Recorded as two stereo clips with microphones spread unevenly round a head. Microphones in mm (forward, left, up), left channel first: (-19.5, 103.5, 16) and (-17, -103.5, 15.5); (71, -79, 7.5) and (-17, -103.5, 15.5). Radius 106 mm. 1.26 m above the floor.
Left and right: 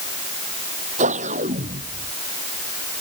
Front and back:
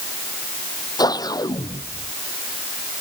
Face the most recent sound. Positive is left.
turn(degrees=-30)